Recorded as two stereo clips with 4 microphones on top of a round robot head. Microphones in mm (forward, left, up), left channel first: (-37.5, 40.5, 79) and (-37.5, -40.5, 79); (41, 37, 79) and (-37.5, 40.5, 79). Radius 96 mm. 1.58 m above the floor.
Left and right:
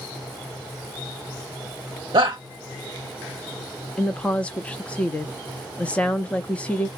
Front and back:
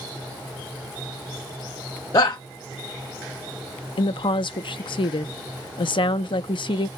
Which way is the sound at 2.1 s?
50° right.